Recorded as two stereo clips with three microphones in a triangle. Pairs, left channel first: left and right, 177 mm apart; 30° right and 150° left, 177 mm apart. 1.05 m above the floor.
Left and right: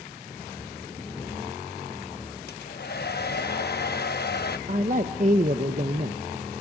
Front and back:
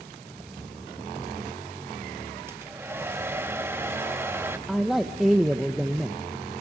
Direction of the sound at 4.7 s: 120° right.